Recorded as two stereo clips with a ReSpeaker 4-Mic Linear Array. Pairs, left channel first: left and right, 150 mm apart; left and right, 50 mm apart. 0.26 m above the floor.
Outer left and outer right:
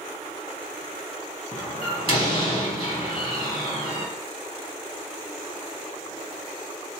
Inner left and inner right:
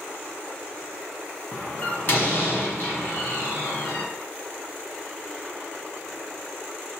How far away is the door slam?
About 2 m.